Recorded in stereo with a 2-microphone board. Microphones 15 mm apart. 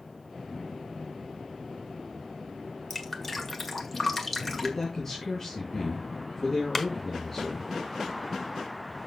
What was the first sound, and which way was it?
Dripping, 15° left (ahead or behind).